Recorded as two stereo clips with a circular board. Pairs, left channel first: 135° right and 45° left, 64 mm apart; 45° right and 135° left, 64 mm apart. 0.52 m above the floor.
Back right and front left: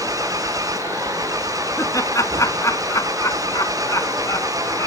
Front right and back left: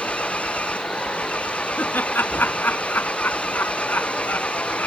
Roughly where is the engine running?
Ahead left.